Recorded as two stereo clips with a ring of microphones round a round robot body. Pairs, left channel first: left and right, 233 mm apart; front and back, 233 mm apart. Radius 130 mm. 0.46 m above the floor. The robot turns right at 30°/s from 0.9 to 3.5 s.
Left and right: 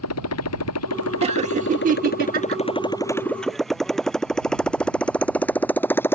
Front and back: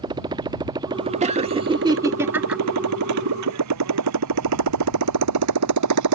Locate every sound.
0.0 s a motorcycle: 105° left; by 6.2 s 170° left
1.2 s laughter: 140° right; by 2.6 s 95° right